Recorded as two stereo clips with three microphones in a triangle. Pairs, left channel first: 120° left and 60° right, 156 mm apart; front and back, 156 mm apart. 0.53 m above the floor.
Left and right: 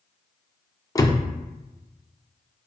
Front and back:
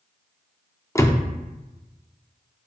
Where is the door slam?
65° left, 0.6 m.